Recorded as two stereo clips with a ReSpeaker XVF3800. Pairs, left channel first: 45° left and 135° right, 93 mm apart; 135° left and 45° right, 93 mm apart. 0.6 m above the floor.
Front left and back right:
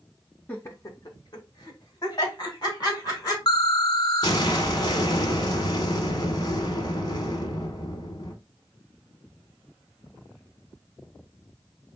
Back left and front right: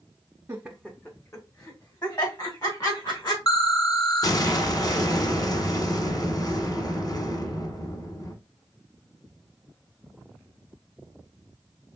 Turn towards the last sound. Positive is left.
turn(degrees=90)